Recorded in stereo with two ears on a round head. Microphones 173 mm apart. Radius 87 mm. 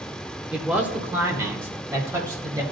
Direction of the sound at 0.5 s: 5° right (ahead or behind).